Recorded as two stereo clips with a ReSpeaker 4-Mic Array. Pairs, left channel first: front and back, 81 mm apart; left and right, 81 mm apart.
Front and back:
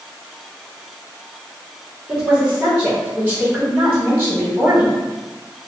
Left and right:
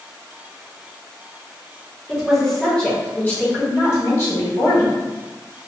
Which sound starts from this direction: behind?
A woman speaking, at 2.1 s.